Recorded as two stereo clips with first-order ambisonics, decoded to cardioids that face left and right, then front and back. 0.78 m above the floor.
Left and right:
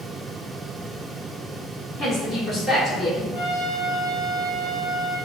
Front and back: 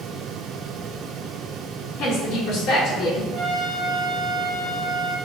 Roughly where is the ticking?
No ticking in this recording.